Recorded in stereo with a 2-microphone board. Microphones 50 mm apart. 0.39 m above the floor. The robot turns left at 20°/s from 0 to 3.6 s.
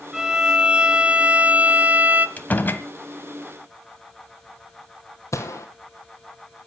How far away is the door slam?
About 1.5 m.